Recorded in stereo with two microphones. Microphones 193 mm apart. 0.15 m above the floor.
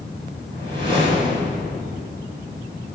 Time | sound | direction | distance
0.5 | a whoosh | 25° right (ahead or behind) | 3.5 m